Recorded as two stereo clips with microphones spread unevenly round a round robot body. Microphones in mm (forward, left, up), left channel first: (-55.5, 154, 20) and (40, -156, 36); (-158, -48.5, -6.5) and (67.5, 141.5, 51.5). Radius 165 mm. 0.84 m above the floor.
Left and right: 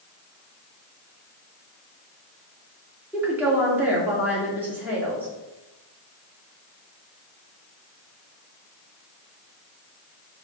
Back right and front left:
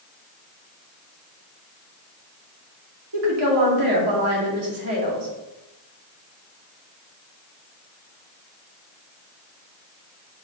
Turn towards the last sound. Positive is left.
turn(degrees=10)